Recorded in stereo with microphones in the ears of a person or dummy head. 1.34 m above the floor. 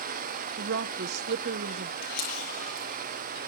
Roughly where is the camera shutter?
Left.